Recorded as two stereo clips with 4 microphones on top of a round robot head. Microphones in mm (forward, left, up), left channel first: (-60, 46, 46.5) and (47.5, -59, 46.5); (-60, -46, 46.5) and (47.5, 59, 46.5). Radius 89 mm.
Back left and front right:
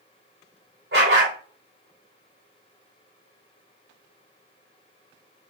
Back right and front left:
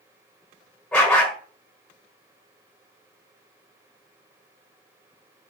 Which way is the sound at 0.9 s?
55° right.